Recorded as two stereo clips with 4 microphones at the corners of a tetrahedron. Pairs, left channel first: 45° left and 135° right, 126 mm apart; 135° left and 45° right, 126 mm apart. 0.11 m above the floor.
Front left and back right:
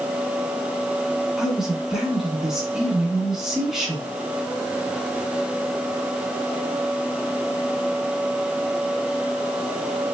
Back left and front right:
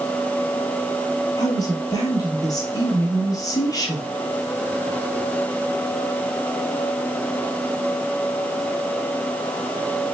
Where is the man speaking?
140° left, 1.6 m.